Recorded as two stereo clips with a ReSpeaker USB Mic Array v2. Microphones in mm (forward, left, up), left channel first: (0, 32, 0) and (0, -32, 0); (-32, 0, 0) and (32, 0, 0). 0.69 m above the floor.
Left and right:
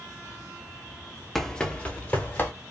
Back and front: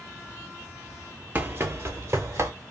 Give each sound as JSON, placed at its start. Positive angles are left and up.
{"t": 1.4, "sound": "running footsteps", "azimuth_deg": 10, "distance_m": 0.7}